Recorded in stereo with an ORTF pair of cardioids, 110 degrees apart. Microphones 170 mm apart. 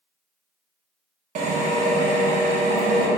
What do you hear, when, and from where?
1.4 s a drill: 50° right, 0.9 m